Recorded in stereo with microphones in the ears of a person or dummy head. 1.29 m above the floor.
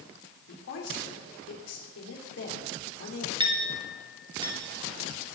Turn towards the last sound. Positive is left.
turn(degrees=-20)  # may be behind; listen again after turning